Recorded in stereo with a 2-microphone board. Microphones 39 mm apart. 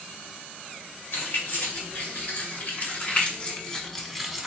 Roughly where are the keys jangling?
Left.